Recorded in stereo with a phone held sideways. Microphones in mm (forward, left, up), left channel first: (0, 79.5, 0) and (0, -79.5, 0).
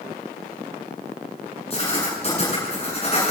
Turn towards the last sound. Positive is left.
turn(degrees=35)  # may be behind; listen again after turning